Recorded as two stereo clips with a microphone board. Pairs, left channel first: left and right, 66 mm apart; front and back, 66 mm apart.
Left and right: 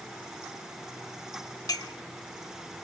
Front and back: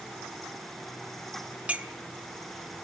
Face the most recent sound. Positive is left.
turn(degrees=110)